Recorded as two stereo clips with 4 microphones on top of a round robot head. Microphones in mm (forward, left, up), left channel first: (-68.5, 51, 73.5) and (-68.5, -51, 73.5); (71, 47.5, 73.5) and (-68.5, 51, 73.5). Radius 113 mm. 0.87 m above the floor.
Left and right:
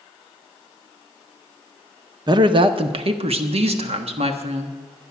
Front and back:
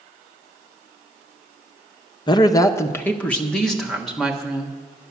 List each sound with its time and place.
2.3 s a woman speaking: 55° right, 0.7 m; by 4.8 s 95° right, 1.7 m